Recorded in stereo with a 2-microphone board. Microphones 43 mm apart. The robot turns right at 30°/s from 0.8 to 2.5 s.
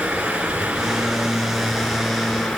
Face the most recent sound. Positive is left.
turn(degrees=25)